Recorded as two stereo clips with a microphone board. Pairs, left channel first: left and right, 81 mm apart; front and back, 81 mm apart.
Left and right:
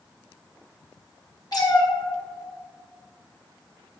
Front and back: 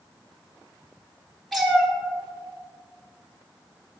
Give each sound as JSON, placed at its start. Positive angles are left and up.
{"t": 1.5, "sound": "a cat meowing", "azimuth_deg": 90, "distance_m": 1.1}